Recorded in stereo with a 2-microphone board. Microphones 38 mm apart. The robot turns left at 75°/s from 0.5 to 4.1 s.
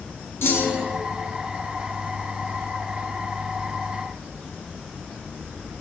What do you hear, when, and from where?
0.4 s a clunk: 80° left, 0.8 m; by 1.0 s 45° left, 0.8 m